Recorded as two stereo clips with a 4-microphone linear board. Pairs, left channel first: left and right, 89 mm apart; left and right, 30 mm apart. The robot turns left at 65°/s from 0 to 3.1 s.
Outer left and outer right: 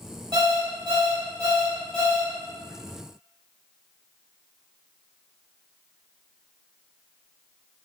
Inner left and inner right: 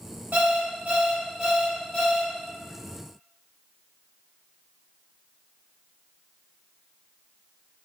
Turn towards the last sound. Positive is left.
turn(degrees=100)